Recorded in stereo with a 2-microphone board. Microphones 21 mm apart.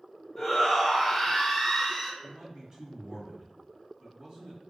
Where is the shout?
10° left (ahead or behind), 1.6 m.